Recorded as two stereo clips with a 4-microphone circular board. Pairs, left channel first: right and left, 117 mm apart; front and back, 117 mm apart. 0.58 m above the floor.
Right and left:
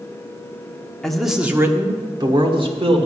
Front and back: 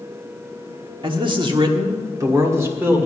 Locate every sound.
1.0 s a man speaking: 175° right, 1.3 m; by 3.1 s 110° left, 1.9 m